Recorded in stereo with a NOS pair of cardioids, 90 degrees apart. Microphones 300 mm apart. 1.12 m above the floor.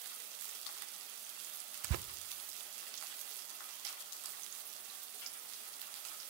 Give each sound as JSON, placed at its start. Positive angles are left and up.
{"t": 1.8, "sound": "tearing paper", "azimuth_deg": -60, "distance_m": 0.5}